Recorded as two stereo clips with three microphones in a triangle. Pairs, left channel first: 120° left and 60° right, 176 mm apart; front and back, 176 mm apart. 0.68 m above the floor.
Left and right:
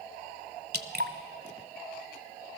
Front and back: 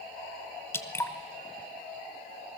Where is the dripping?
75° right, 1.1 m.